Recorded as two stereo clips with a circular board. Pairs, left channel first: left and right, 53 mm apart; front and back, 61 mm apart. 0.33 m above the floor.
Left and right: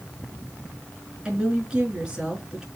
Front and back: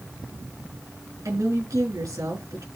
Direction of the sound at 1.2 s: 165° right.